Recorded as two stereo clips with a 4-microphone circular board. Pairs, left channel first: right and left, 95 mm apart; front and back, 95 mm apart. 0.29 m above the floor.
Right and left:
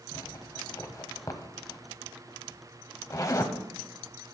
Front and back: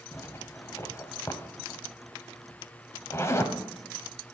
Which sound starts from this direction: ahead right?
A zipper, at 0.1 s.